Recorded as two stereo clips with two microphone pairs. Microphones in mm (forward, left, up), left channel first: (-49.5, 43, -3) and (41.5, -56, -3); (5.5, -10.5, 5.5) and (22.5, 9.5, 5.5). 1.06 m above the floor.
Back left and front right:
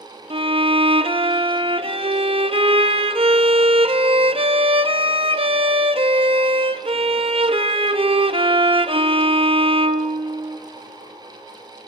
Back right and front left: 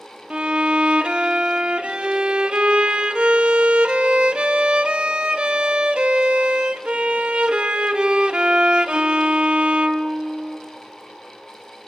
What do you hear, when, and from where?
0.3 s a violin: straight ahead, 0.7 m